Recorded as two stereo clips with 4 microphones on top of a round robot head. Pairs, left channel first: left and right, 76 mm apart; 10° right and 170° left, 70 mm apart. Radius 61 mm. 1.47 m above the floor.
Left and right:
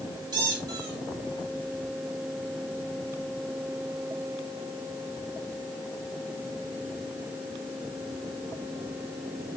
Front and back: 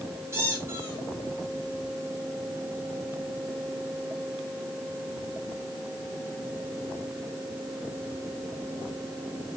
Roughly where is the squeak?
Behind right.